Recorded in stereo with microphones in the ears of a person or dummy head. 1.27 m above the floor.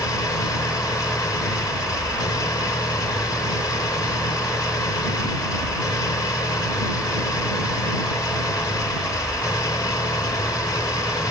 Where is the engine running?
15° left (ahead or behind).